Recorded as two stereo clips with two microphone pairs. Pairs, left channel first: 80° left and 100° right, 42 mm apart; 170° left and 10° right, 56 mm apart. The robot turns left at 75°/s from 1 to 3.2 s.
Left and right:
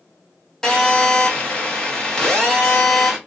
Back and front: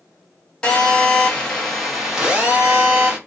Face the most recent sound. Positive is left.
turn(degrees=-35)